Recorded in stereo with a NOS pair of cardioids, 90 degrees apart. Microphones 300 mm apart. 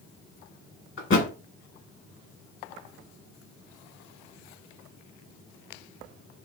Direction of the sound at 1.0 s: 45° left.